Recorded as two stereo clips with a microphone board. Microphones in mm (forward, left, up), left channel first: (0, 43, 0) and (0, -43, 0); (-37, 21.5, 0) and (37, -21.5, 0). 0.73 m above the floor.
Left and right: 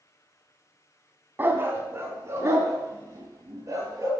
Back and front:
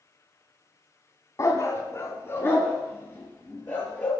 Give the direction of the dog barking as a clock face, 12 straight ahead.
5 o'clock.